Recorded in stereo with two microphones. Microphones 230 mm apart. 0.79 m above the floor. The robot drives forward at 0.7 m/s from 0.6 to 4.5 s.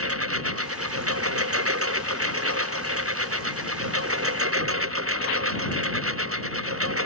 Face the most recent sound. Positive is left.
turn(degrees=-75)  # may be behind; listen again after turning